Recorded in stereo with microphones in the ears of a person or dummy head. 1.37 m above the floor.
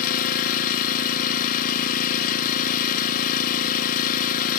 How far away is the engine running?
About 0.8 m.